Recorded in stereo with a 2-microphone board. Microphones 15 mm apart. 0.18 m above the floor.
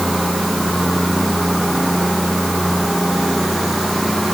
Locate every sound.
Only background noise.